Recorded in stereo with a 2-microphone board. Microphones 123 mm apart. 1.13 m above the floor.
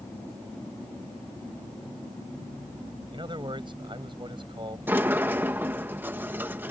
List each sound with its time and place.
3.1 s a man speaking: 40° right (ahead or behind)
4.9 s a sliding door: 15° right (ahead or behind)